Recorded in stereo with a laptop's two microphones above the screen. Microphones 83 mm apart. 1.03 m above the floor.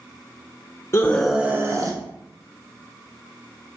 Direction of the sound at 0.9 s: 30° left (ahead or behind).